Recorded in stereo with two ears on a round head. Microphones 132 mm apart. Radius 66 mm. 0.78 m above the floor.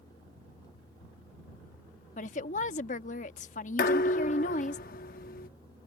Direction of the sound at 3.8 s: 65° left (ahead or behind).